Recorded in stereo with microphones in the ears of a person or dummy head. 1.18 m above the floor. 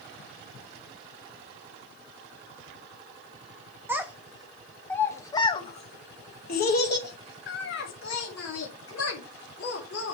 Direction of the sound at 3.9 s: 10° right (ahead or behind).